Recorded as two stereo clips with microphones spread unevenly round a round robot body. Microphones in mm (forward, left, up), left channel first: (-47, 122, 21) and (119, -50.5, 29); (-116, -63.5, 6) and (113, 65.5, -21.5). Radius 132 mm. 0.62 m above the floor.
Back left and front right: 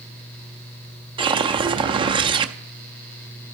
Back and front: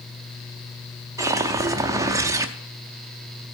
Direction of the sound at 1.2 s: 10° right.